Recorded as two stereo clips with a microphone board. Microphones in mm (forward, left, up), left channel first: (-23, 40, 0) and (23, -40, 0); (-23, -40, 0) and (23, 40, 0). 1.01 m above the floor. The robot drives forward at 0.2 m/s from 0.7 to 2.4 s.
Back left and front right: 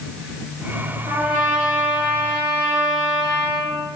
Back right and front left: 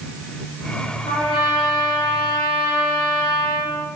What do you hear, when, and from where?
1.1 s a trumpet: 85° right, 1.8 m; by 3.7 s 95° right, 1.8 m